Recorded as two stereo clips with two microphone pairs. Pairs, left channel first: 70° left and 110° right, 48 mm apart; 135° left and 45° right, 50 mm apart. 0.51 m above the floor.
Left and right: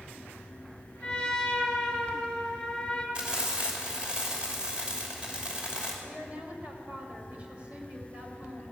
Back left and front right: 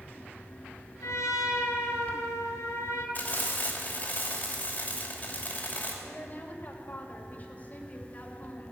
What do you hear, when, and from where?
1.0 s a trumpet: 145° left, 2.5 m
3.1 s frying: 175° right, 2.5 m
6.0 s a woman speaking: 175° right, 2.5 m